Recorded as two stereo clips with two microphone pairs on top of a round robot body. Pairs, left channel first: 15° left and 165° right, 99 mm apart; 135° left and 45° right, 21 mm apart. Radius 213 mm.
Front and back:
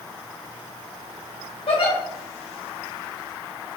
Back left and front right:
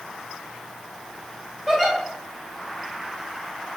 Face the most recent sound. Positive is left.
turn(degrees=50)